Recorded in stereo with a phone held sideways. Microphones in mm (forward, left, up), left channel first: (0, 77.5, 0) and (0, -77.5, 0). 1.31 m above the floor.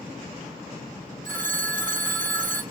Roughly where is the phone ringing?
Right.